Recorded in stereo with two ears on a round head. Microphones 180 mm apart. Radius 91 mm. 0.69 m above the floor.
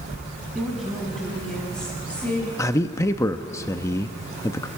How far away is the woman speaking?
About 6.5 m.